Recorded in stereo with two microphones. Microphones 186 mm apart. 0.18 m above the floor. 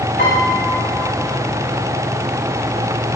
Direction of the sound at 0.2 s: 65° left (ahead or behind).